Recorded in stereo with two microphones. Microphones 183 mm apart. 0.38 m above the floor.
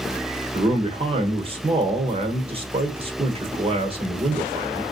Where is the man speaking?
30° right (ahead or behind), 1.0 m.